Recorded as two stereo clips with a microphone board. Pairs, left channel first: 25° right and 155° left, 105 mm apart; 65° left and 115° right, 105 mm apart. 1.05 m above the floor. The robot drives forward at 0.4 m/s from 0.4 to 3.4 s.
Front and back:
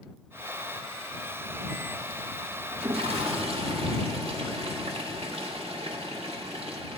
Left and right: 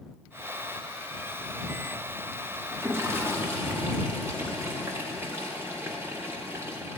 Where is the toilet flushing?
Straight behind, 0.7 m.